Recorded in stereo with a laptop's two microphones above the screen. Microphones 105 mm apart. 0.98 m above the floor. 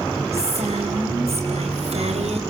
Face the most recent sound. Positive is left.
turn(degrees=-80)